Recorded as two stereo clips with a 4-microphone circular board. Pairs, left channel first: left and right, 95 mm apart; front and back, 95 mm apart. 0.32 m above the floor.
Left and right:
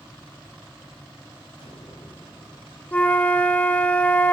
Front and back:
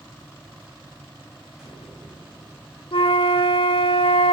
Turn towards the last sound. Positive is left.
turn(degrees=15)